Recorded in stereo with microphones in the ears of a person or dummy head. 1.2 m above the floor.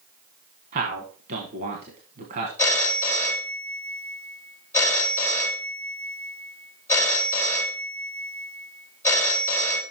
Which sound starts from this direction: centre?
A phone ringing, at 2.6 s.